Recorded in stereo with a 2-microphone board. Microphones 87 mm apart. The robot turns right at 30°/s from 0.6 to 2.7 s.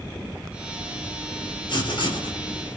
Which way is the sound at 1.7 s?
60° left (ahead or behind).